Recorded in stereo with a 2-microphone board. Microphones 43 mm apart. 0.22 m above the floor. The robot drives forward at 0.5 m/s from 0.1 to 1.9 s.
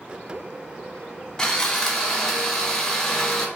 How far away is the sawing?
About 0.5 m.